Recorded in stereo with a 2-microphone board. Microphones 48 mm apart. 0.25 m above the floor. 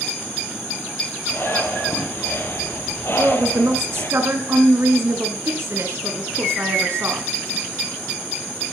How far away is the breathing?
About 3 m.